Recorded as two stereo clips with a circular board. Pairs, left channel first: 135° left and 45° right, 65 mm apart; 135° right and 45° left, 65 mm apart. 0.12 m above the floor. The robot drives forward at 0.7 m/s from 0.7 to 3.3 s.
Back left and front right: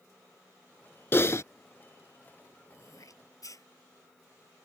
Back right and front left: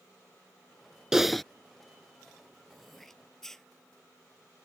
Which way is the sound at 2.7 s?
135° left.